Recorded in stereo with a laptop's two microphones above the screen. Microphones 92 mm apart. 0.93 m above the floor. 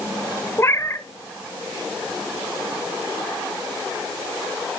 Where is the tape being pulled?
I don't hear tape being pulled.